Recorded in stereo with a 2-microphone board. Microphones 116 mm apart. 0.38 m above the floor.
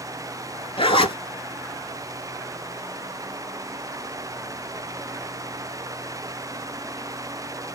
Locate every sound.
0.8 s a zipper: 50° left (ahead or behind), 0.8 m